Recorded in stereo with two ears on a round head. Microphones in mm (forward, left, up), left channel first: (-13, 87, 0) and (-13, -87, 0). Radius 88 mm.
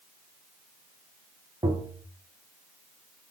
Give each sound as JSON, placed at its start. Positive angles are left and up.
{"t": 1.6, "sound": "tapping", "side_deg": -20, "distance_m": 0.6}